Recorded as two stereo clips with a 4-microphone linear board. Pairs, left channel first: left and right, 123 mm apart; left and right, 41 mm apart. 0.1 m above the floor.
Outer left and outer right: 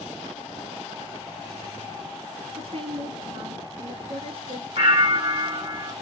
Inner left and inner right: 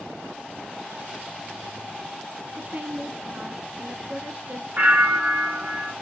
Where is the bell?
55° right (ahead or behind), 1.8 m.